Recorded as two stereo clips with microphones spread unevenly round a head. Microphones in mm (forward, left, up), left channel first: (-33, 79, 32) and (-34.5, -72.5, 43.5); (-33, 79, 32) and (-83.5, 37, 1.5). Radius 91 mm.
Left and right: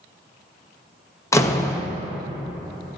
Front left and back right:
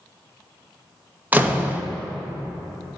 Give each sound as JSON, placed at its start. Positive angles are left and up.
{"t": 1.3, "sound": "a door slam", "azimuth_deg": 160, "distance_m": 1.0}